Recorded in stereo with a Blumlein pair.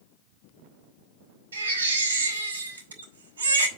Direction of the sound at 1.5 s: 65° right.